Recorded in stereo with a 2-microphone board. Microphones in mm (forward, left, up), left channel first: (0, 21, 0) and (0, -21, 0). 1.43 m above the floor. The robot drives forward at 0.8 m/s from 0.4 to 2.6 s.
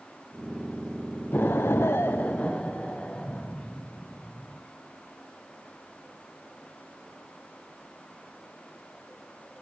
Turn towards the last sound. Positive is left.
turn(degrees=35)  # may be behind; listen again after turning